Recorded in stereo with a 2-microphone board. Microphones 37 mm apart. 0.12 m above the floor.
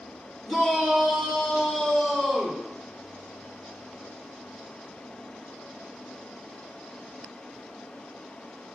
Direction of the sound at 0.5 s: 25° left (ahead or behind).